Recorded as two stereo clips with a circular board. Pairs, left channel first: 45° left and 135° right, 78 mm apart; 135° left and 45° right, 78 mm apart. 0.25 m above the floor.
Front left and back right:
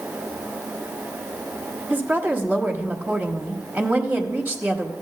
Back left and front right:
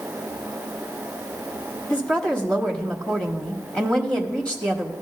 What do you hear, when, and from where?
1.9 s a woman speaking: 165° right, 1.0 m